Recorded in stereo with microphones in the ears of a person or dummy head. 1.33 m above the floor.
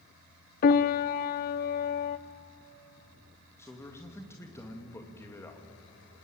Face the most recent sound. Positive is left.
turn(degrees=15)  # may be behind; listen again after turning